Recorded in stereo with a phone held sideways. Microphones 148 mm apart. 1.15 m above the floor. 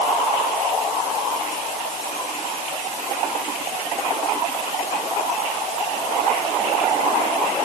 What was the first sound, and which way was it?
Only background noise.